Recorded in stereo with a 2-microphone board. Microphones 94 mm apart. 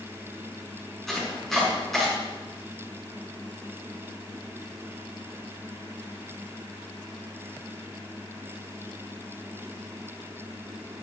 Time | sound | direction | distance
1.1 | chopping | centre (ahead or behind) | 6 m